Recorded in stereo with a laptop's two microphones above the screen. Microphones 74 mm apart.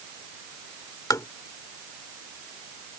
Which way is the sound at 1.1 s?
50° left (ahead or behind).